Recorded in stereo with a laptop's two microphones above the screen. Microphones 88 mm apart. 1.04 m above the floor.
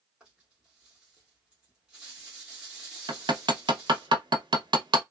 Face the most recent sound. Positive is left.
turn(degrees=-60)  # may be behind; listen again after turning